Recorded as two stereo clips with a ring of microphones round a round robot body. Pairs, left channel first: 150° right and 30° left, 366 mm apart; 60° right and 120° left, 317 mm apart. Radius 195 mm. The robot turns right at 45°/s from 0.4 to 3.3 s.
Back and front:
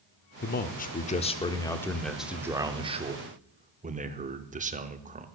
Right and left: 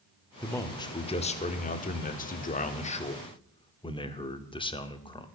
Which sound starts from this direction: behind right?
A man speaking, at 0.4 s.